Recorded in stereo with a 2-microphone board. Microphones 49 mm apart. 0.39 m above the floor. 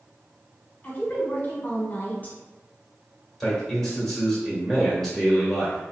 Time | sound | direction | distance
0.8 | a woman speaking | 35° left (ahead or behind) | 1.0 m
3.4 | a man speaking | 10° left (ahead or behind) | 1.3 m